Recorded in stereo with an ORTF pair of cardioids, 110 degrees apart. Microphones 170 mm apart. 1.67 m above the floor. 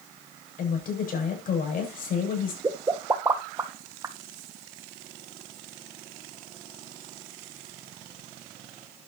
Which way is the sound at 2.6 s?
20° right.